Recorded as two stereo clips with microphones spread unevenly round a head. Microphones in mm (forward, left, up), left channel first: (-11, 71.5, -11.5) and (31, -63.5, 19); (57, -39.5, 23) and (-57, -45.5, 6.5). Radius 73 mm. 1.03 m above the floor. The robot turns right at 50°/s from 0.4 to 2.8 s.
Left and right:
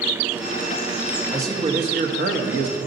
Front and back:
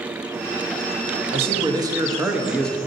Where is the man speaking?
150° right, 1.1 m; by 2.8 s 75° right, 1.1 m.